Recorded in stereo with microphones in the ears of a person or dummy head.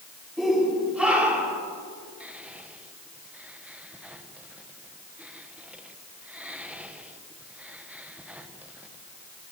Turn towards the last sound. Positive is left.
turn(degrees=-5)  # may be behind; listen again after turning